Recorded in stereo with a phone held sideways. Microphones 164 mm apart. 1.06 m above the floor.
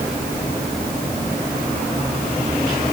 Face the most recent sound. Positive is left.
No sound to turn to.